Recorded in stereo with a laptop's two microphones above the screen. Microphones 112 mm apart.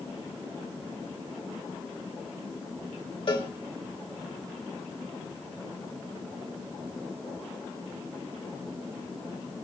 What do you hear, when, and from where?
3.3 s a cowbell: 50° left (ahead or behind), 3 m